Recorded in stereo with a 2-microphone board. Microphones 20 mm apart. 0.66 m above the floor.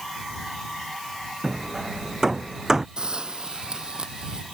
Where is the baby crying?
I don't hear a baby crying.